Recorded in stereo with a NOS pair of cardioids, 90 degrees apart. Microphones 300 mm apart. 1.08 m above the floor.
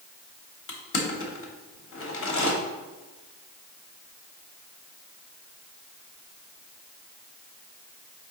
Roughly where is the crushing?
Ahead left.